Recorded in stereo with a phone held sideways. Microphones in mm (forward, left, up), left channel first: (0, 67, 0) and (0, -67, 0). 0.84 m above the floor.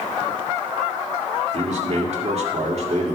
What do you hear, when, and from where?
1.5 s a man speaking: 55° right (ahead or behind), 1.7 m